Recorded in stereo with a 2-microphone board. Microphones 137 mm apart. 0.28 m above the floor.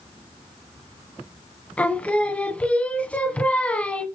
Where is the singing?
10° left (ahead or behind), 1.3 m.